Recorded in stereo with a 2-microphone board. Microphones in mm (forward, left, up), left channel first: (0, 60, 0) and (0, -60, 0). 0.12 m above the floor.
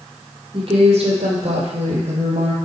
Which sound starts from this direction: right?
A woman speaking, at 0.5 s.